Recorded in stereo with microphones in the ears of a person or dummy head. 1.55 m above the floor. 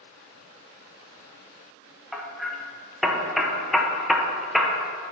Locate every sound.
2.1 s hammering: centre (ahead or behind), 0.8 m